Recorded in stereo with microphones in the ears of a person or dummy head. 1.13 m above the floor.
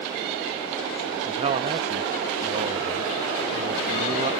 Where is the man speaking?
35° right (ahead or behind).